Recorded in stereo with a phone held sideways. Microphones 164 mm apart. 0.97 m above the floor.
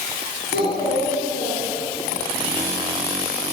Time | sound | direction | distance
0.5 | a child speaking | 60° left (ahead or behind) | 9.5 m